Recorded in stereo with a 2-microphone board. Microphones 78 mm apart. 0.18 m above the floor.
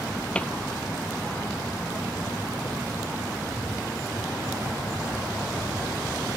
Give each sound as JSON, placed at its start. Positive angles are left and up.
{"t": 0.3, "sound": "a cupboard door", "side_deg": 15}